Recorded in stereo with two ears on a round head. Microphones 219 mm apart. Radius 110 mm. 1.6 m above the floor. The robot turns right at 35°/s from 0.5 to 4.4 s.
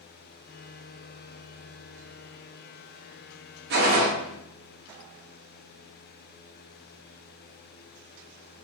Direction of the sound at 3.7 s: 45° right (ahead or behind).